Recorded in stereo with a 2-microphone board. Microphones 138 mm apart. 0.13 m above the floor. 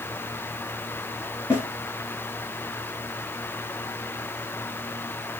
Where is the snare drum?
20° left (ahead or behind), 1.6 m.